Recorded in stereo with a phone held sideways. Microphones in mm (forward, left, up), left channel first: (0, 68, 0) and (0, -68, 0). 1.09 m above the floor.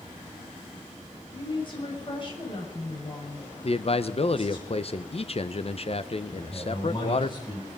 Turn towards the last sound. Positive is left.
turn(degrees=35)  # may be behind; listen again after turning